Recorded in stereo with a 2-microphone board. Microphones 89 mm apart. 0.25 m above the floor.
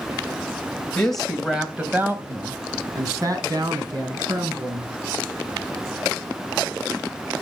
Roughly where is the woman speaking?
Centre.